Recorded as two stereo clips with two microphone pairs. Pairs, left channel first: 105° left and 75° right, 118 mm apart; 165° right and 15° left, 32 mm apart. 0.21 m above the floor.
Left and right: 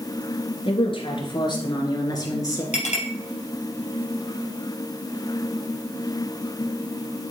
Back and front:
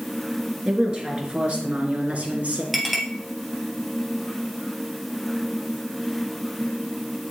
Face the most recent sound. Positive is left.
turn(degrees=95)